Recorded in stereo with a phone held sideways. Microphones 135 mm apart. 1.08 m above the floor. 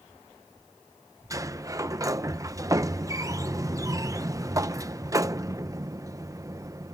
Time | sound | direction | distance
1.3 | a sliding door | 25° right (ahead or behind) | ?